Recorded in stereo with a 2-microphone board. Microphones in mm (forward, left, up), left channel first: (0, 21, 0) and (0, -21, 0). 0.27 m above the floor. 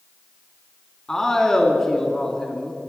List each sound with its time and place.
1.1 s a man speaking: 10° left (ahead or behind), 2.5 m